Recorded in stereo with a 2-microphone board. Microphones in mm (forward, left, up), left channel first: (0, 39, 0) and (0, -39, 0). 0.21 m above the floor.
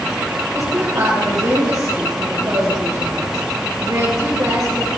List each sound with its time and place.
0.5 s a woman speaking: 50° right (ahead or behind), 5 m